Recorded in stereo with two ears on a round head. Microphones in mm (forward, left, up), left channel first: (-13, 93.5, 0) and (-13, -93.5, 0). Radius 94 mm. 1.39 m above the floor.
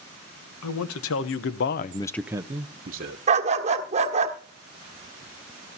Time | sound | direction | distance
0.6 | a man speaking | 85° left | 1.4 m
3.3 | a dog barking | 35° right (ahead or behind) | 1.3 m